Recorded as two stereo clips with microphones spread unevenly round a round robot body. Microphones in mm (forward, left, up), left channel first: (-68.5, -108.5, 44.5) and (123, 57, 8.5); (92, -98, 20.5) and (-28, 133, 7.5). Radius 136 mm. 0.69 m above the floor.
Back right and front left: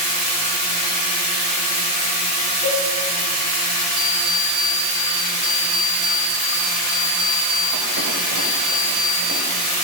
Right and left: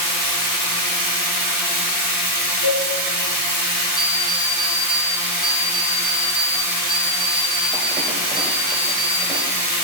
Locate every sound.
0.0 s running water: 65° left, 2.5 m
2.6 s a cowbell: 70° right, 2.5 m
4.0 s an alarm clock: 40° left, 1.2 m